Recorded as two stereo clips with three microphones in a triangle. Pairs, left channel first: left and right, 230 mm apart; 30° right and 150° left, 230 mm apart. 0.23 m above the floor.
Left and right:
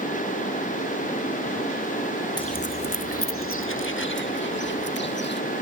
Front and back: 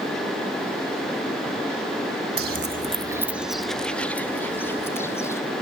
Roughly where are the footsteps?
Behind.